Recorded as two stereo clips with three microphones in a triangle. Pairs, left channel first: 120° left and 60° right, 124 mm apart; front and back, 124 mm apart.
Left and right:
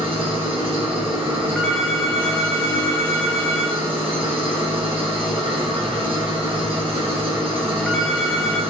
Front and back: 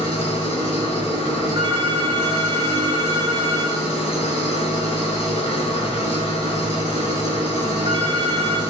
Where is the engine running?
25° right, 1.7 m.